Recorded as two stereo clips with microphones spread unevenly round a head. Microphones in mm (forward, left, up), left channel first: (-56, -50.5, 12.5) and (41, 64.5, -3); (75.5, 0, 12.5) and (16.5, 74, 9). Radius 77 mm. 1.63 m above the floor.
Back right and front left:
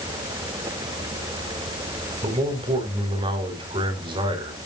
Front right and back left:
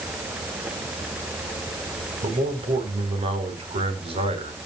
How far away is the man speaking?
About 4.5 m.